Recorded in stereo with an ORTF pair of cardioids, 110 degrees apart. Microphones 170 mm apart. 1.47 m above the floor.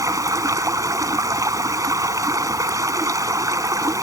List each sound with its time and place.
0.0 s running water: 20° right